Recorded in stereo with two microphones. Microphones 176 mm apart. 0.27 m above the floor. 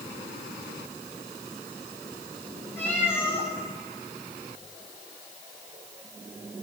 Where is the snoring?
No snoring in this recording.